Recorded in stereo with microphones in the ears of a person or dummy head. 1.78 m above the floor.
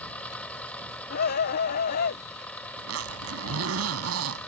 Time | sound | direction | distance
0.0 | an engine running | 5° left (ahead or behind) | ?
1.1 | a scream | 55° left (ahead or behind) | ?
2.8 | a zipper | 80° right | ?